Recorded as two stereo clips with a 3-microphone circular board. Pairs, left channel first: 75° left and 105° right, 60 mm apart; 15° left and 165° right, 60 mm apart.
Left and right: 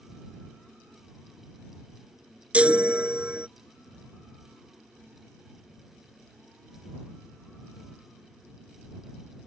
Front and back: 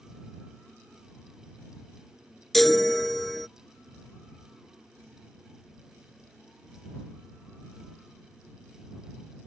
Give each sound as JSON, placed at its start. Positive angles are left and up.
{"t": 2.5, "sound": "a chime", "azimuth_deg": -70}